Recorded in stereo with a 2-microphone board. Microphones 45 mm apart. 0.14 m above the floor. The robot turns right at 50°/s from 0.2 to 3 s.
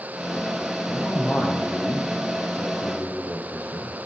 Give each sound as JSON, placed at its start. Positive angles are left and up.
{"t": 0.9, "sound": "a man speaking", "azimuth_deg": 5, "distance_m": 4.0}